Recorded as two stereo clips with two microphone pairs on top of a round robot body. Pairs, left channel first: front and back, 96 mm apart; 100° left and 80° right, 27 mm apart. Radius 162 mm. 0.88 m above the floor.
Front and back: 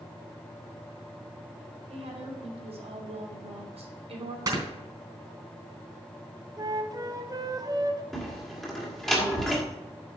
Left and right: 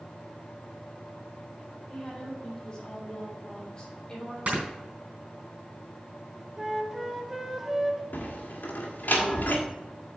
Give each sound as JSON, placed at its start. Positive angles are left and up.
{"t": 1.9, "sound": "a woman speaking", "azimuth_deg": 170, "distance_m": 4.0}
{"t": 4.5, "sound": "snoring", "azimuth_deg": -125, "distance_m": 3.5}
{"t": 6.6, "sound": "a flute", "azimuth_deg": -160, "distance_m": 1.0}
{"t": 8.1, "sound": "a door slam", "azimuth_deg": 85, "distance_m": 1.9}